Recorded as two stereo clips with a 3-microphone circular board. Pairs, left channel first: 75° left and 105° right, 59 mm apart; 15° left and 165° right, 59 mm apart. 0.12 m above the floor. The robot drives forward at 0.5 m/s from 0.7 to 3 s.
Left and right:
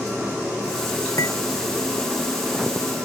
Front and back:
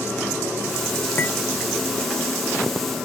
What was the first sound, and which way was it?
Cutlery clinking, 65° left.